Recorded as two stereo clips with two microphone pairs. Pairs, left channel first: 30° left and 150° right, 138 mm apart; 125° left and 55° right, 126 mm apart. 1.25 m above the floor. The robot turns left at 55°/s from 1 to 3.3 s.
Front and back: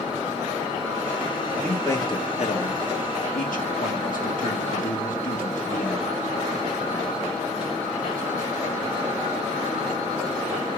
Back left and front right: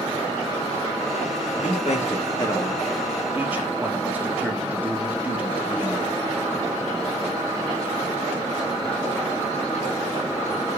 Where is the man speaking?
120° left, 1.8 m; by 6.1 s 20° left, 1.8 m.